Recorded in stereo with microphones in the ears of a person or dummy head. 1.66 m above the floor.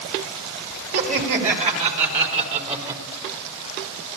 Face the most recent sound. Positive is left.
turn(degrees=-30)  # may be behind; listen again after turning